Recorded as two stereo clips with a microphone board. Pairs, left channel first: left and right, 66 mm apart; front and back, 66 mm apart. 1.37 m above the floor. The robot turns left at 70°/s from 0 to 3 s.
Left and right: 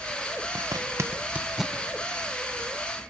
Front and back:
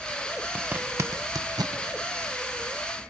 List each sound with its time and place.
0.6 s a zipper: 100° right, 0.9 m; by 1.8 s 170° left, 0.9 m